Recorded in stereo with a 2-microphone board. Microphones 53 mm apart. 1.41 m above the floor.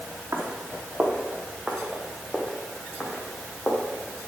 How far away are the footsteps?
About 3 m.